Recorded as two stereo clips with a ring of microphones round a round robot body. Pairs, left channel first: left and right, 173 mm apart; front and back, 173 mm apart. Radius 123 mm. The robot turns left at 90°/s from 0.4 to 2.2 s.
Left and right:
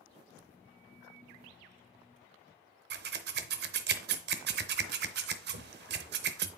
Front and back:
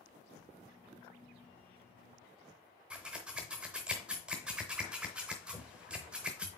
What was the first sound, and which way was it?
Scissors, 95° right.